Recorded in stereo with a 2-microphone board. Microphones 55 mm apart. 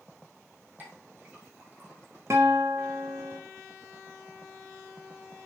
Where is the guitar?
55° right (ahead or behind), 1.5 m.